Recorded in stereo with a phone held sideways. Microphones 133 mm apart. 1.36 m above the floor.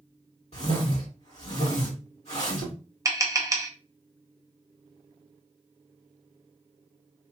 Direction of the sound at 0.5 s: 50° left (ahead or behind).